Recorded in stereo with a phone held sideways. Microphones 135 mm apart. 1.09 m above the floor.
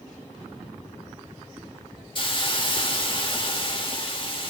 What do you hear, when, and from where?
2.1 s a hiss: 40° left (ahead or behind), 1.4 m